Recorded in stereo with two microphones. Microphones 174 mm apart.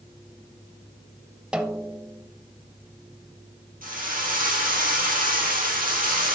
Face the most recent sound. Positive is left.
turn(degrees=-50)  # may be behind; listen again after turning